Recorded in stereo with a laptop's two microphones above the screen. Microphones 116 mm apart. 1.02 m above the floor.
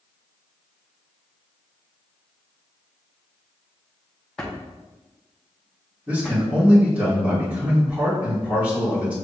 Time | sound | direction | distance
4.4 | a drawer | 5° left (ahead or behind) | 0.6 m
6.1 | a man speaking | 15° right (ahead or behind) | 1.8 m